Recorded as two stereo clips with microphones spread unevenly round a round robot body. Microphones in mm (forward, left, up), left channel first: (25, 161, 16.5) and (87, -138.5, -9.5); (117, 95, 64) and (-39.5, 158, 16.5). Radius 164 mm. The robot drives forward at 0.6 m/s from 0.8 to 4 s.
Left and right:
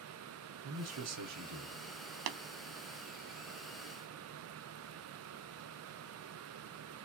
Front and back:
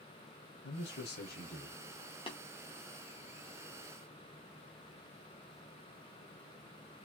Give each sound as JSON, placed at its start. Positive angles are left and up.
{"t": 0.6, "sound": "a man speaking", "azimuth_deg": -50, "distance_m": 1.2}
{"t": 2.3, "sound": "tapping", "azimuth_deg": -95, "distance_m": 0.5}